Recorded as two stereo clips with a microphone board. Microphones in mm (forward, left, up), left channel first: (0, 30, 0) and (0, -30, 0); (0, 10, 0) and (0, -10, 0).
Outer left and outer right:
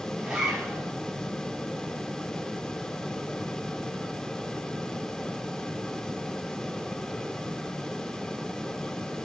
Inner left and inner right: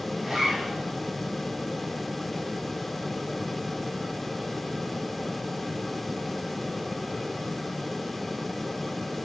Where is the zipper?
10° right (ahead or behind), 7 m.